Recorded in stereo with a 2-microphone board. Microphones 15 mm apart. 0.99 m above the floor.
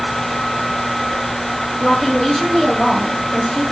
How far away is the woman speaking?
About 2 m.